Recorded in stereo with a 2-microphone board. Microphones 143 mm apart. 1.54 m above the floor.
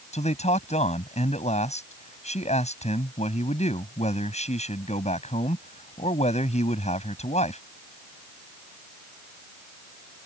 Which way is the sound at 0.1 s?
50° left (ahead or behind).